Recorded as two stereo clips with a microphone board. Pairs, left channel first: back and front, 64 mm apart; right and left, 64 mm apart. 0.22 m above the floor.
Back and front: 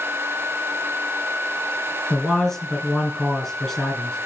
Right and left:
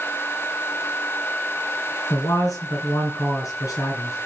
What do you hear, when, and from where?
2.1 s a man speaking: 100° right, 2.5 m